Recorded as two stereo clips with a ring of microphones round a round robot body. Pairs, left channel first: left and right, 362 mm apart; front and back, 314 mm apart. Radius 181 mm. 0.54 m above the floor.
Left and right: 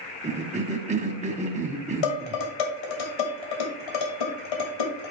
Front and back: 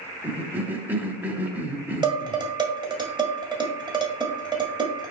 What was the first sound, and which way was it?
A cough, 105° right.